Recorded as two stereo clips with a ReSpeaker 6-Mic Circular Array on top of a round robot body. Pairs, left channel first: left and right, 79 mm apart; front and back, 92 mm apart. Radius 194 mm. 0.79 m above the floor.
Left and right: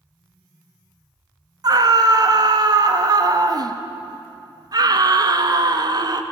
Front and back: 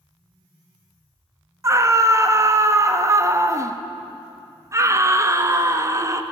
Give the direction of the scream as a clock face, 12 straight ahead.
4 o'clock.